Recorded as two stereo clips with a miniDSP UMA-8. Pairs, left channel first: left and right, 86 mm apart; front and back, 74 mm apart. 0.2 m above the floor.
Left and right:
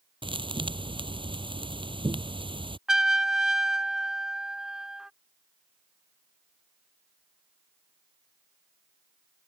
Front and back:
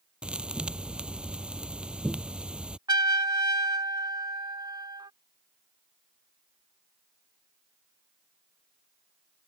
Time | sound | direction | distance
0.2 | a thud | 105° right | ?
2.9 | a trumpet | 175° right | ?